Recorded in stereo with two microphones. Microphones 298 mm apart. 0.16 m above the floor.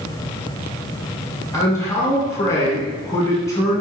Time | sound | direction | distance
1.5 | a man speaking | 10° left (ahead or behind) | 1.3 m